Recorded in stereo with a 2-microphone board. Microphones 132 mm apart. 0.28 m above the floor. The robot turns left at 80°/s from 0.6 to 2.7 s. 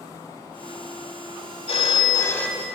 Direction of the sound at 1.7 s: 75° left.